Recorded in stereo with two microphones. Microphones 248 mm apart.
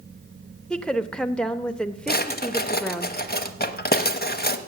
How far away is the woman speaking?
About 0.9 m.